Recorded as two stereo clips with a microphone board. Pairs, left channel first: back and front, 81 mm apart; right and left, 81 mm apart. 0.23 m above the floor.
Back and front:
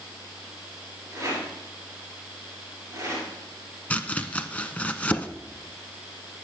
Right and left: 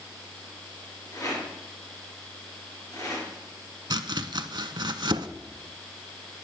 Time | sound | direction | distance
1.1 | a rattle | 50° right | 4 m
3.9 | chopping | 110° left | 0.6 m